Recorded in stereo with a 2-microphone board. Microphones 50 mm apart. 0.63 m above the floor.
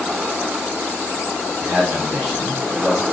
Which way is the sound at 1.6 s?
15° right (ahead or behind).